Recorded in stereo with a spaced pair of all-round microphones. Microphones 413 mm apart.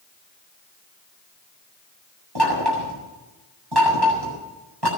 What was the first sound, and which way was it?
Knocking, 65° right (ahead or behind).